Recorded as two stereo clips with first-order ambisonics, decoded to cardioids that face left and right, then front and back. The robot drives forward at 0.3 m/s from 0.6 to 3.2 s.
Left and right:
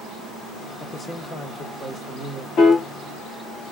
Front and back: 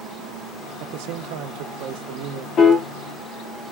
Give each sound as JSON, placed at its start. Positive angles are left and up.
{"t": 0.8, "sound": "a man speaking", "azimuth_deg": 170, "distance_m": 0.6}
{"t": 2.6, "sound": "a piano", "azimuth_deg": 50, "distance_m": 1.3}